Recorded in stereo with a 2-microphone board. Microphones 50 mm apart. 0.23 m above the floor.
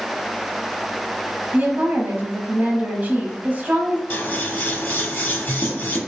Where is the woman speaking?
35° right (ahead or behind), 1.2 m.